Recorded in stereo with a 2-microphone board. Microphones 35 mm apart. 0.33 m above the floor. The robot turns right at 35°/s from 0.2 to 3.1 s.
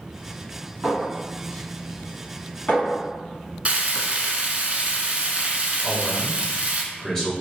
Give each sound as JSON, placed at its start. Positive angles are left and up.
{"t": 0.8, "sound": "a clink", "side_deg": -15, "distance_m": 1.8}
{"t": 3.6, "sound": "frying", "side_deg": -40, "distance_m": 0.7}
{"t": 5.8, "sound": "a man speaking", "side_deg": 10, "distance_m": 1.0}